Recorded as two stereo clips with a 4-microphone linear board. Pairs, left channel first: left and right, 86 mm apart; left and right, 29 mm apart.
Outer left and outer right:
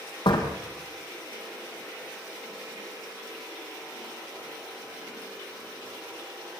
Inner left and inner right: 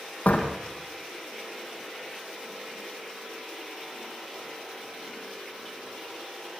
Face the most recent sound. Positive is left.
turn(degrees=75)  # may be behind; listen again after turning